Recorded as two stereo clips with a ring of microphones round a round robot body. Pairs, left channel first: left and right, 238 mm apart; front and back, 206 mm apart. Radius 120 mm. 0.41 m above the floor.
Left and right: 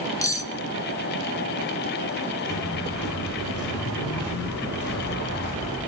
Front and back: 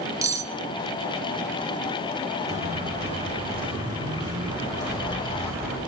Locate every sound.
0.2 s cutlery clinking: 140° left, 0.6 m
2.5 s footsteps: 125° left, 4 m; by 5.8 s 100° left, 5 m